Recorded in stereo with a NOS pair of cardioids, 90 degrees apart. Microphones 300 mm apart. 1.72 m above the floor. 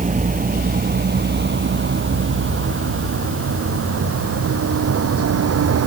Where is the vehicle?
25° right; by 5.9 s 55° right.